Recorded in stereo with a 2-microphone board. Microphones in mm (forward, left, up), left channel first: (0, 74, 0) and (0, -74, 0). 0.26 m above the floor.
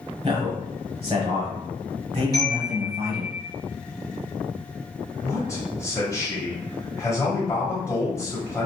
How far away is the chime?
About 1.9 m.